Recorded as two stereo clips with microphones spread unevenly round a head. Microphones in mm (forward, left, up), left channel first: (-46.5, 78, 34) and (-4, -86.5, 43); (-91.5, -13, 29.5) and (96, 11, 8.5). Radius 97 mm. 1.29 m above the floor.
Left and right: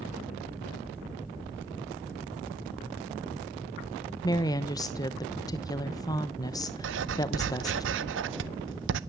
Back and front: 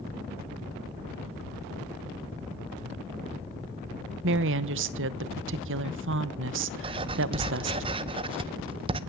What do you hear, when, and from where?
4.2 s a woman speaking: 35° left, 0.9 m
6.8 s writing: 60° right, 0.6 m